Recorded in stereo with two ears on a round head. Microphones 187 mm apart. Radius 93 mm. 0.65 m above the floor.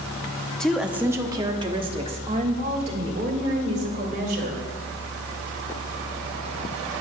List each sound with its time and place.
0.6 s a woman speaking: 5° left (ahead or behind), 0.7 m; by 4.6 s 40° right (ahead or behind), 2.5 m